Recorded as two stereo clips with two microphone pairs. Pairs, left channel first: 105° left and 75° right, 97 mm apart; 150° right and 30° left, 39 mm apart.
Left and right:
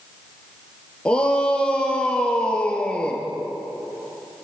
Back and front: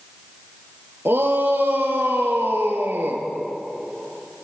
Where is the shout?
25° left, 4 m.